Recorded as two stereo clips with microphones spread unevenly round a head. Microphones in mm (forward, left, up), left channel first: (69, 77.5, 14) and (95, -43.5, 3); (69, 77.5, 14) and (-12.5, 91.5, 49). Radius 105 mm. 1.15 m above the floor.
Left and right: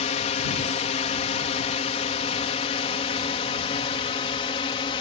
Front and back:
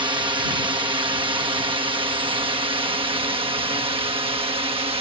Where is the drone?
135° left; by 5.0 s 155° left.